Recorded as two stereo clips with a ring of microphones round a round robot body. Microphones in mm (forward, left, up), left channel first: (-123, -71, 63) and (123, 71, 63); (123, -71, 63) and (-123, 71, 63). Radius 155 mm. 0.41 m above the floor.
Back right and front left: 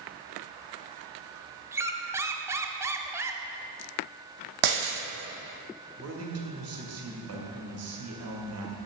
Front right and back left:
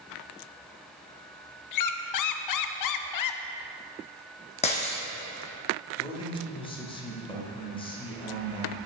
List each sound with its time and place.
1.7 s a squeak: 50° right, 0.6 m
4.6 s breaking glass: 40° left, 1.4 m
6.0 s a man speaking: 40° left, 2 m